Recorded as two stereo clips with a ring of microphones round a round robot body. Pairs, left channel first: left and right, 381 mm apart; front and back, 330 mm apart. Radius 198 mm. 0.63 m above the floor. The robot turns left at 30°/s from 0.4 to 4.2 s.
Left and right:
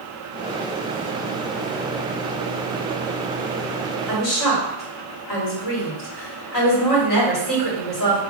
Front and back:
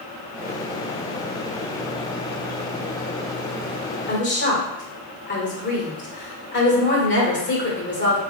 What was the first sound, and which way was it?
A woman speaking, 60° left.